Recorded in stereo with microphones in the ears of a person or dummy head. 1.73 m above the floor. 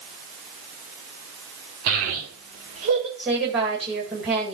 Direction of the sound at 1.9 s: 70° right (ahead or behind).